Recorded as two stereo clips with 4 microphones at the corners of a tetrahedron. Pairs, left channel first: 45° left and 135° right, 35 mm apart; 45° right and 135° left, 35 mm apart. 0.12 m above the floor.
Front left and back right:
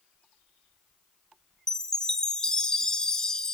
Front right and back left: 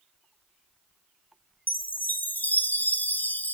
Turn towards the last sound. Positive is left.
turn(degrees=-25)